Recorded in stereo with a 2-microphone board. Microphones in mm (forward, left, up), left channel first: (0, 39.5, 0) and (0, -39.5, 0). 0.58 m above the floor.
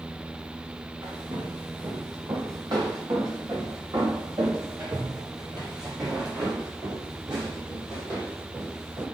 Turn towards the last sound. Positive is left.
turn(degrees=-50)  # may be behind; listen again after turning